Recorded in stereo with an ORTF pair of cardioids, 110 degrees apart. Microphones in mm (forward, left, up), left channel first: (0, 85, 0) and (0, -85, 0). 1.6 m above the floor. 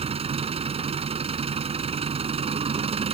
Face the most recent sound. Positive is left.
turn(degrees=-35)